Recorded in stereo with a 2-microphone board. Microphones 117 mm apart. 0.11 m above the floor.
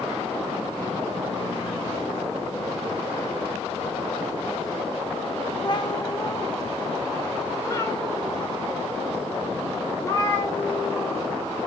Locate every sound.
5.7 s a cat meowing: 40° left (ahead or behind), 0.6 m; by 11.2 s 25° left (ahead or behind), 3.5 m